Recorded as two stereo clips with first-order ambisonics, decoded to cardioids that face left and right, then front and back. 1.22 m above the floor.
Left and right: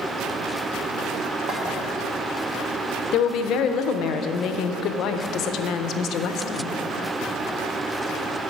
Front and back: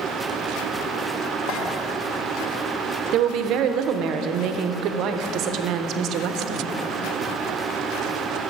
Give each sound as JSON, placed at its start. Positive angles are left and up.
{"t": 1.5, "sound": "a clink", "azimuth_deg": -35, "distance_m": 1.5}
{"t": 3.1, "sound": "a woman speaking", "azimuth_deg": 135, "distance_m": 0.5}